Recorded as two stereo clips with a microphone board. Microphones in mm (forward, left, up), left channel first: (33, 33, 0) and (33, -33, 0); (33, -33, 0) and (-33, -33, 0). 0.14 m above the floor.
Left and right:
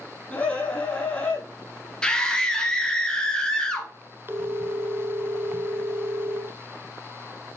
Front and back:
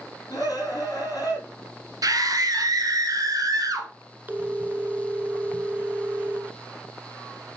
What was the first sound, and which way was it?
A scream, 20° left.